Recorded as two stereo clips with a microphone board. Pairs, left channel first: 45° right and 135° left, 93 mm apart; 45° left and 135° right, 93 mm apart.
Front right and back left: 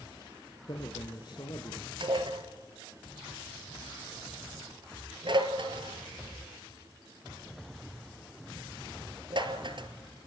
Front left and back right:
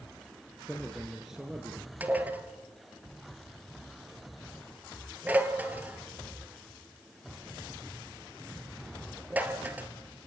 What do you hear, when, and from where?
0.7 s a man speaking: 40° right, 2 m; by 1.9 s 65° right, 2 m
2.0 s dishes clattering: 155° left, 1.9 m